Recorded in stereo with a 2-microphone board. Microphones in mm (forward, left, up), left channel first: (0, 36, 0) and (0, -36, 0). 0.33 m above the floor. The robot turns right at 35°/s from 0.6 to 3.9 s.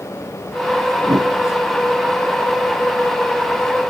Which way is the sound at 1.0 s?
75° right (ahead or behind).